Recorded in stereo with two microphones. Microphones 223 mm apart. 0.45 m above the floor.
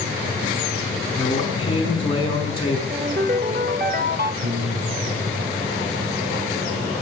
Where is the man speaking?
25° left (ahead or behind), 5.5 m.